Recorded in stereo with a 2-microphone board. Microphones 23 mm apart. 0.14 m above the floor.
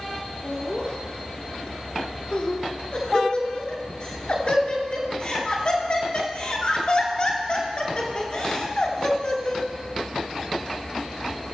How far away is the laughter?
About 1.6 m.